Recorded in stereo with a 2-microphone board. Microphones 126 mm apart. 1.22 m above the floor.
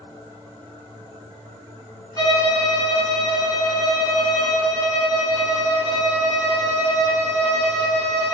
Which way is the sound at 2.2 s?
30° left (ahead or behind).